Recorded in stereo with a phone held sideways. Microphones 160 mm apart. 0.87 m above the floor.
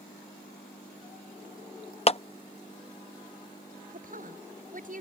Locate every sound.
2.1 s a clap: 40° left (ahead or behind)
3.9 s a woman speaking: 55° right (ahead or behind)